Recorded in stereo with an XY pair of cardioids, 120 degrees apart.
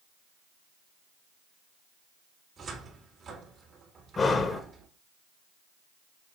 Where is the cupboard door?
45° right, 2.5 m.